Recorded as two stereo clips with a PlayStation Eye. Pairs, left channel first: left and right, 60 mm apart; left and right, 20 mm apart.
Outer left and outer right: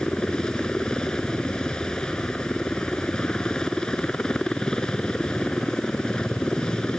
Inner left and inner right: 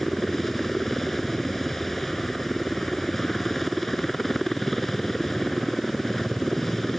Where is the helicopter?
15° left (ahead or behind).